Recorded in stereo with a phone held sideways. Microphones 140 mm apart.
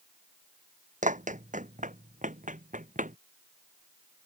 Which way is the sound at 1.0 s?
65° right (ahead or behind).